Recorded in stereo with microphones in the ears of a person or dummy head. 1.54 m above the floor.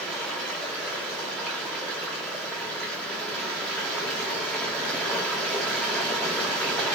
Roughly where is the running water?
Centre.